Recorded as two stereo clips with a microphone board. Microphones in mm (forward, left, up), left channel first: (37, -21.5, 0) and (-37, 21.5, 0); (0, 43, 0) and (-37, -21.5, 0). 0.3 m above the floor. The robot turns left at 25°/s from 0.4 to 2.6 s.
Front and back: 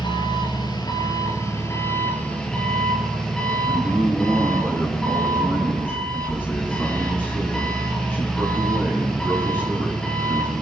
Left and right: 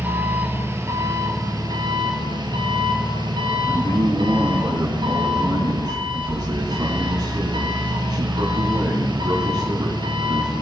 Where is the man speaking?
95° right, 3.5 m.